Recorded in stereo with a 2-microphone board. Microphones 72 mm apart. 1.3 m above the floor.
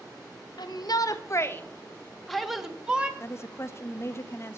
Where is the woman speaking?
40° left (ahead or behind), 0.6 m.